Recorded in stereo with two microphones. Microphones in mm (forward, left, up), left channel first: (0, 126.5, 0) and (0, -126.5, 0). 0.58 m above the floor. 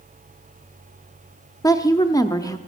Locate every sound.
1.6 s a woman speaking: 15° left (ahead or behind), 0.7 m